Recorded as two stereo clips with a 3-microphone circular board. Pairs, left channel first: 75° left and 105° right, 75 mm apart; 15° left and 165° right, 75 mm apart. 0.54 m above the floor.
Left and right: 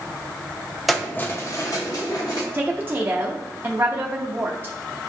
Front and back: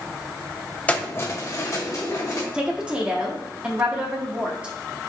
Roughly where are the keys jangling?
Ahead.